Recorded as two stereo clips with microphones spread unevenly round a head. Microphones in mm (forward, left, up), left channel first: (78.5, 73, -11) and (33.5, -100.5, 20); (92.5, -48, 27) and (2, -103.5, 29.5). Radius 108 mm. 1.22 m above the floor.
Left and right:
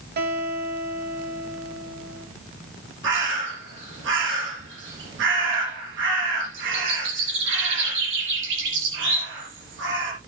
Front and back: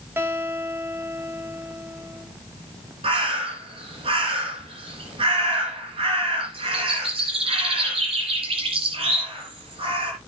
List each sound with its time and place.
0.2 s a guitar: 80° right, 2.5 m
3.0 s a bird: 120° right, 4 m